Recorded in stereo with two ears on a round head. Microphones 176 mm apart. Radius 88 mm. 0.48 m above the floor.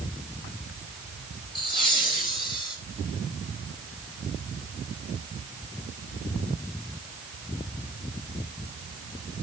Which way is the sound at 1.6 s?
25° left (ahead or behind).